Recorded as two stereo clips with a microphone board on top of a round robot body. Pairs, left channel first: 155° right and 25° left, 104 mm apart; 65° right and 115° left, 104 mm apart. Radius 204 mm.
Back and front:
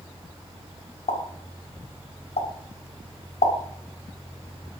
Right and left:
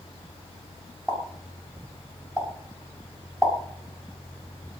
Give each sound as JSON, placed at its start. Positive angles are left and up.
{"t": 1.1, "sound": "a pop", "azimuth_deg": -165, "distance_m": 4.5}